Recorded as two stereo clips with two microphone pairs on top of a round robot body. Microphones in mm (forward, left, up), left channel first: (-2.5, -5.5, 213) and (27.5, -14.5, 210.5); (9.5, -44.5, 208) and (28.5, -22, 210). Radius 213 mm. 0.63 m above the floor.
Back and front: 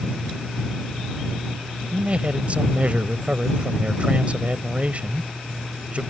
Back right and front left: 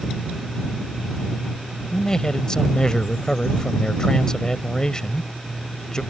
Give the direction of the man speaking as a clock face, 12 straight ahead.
2 o'clock.